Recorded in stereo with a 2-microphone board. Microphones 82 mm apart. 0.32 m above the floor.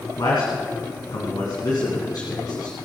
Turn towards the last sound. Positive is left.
turn(degrees=60)  # may be behind; listen again after turning